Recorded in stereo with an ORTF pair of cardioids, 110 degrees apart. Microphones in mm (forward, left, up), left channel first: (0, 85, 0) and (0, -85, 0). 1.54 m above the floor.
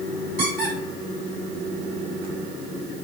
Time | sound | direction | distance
0.4 | a squeak | 60° right | 1.5 m